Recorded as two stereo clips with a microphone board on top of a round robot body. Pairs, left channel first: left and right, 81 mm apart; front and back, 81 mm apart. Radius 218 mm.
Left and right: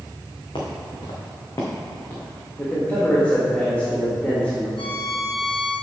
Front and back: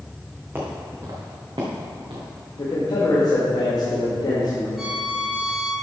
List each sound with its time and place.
0.6 s footsteps: 115° left, 2.5 m; by 2.3 s 165° left, 2.5 m
2.6 s a man speaking: 20° left, 1.8 m
4.8 s a violin: 95° left, 1.4 m